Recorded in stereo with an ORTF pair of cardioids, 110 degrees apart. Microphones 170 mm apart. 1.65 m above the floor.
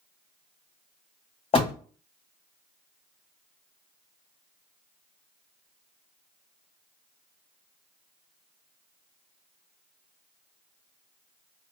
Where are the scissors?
I don't hear scissors.